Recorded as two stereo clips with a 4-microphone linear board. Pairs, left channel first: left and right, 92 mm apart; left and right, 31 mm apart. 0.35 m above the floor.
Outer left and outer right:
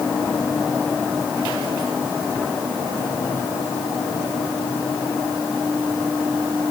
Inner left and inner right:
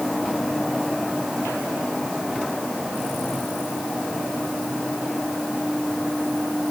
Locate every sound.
Only background noise.